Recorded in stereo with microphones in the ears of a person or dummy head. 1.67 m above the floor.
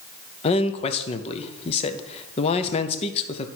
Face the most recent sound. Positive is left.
turn(degrees=35)  # may be behind; listen again after turning